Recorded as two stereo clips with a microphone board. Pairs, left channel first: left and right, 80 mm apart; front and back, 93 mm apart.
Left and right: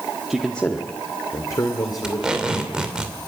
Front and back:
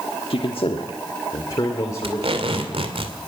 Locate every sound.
0.3 s a man speaking: 5° right, 1.3 m; by 3.0 s 60° left, 4 m
2.0 s tape being pulled: 170° right, 2.5 m